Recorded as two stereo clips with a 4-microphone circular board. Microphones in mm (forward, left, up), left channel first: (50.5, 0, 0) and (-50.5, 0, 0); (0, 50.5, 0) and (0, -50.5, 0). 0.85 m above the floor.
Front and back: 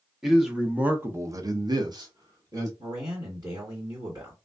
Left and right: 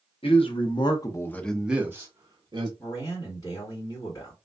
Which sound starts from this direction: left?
A man speaking, at 0.2 s.